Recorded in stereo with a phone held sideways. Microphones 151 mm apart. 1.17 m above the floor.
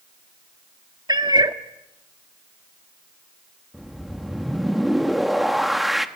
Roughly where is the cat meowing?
Right.